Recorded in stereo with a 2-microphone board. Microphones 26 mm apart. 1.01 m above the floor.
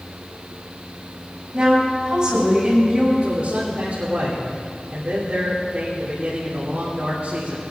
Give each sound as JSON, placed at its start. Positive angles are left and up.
{"t": 1.5, "sound": "a woman speaking", "side_deg": -30, "distance_m": 5.0}
{"t": 3.2, "sound": "a man speaking", "side_deg": -65, "distance_m": 3.0}